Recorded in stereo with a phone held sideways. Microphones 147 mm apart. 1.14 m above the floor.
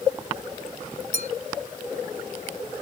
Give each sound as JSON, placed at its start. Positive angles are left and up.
{"t": 1.1, "sound": "a clink", "side_deg": -80}